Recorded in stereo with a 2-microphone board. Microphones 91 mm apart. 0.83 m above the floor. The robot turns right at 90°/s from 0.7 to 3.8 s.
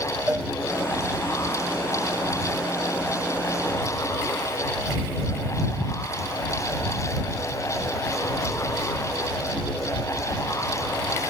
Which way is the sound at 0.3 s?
20° right (ahead or behind).